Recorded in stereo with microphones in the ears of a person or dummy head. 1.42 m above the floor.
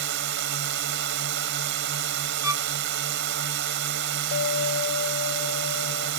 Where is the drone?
55° right (ahead or behind).